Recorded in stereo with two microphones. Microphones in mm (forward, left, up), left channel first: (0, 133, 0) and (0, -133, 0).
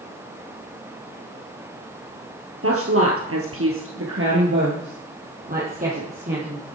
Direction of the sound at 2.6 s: 55° right (ahead or behind).